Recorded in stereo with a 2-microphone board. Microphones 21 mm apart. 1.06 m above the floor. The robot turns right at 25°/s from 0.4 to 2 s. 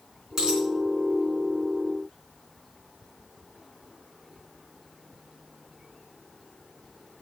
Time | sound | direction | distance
0.4 | a dropped coin | 25° right (ahead or behind) | 3.5 m